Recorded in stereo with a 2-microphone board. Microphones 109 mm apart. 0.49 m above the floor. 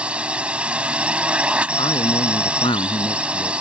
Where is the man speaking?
55° left (ahead or behind).